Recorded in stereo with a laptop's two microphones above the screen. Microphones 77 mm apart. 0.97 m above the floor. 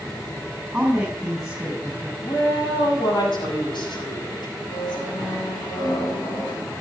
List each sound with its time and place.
0.7 s a woman speaking: 10° right (ahead or behind), 7.5 m
2.2 s a woman speaking: 80° left, 6 m
4.7 s a squeak: 65° left (ahead or behind), 5.5 m